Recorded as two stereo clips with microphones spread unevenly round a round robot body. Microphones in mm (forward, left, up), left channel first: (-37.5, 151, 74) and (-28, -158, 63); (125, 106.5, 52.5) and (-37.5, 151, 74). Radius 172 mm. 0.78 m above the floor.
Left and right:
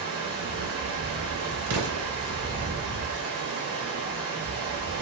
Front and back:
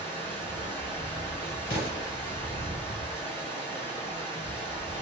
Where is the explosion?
65° right, 0.7 m.